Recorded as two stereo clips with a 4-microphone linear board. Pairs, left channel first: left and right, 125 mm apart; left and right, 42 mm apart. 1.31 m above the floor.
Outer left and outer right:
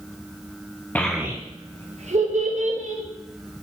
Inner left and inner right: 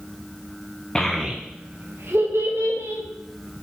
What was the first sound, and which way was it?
A child speaking, 15° left (ahead or behind).